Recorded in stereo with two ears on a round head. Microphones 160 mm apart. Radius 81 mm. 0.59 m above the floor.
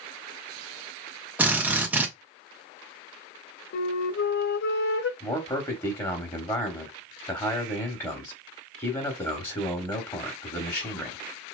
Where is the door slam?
No door slam in this recording.